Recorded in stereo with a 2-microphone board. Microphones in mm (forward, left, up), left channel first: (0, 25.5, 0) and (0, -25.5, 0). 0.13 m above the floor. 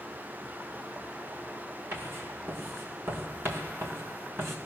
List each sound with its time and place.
1.9 s writing: 50° right (ahead or behind), 2 m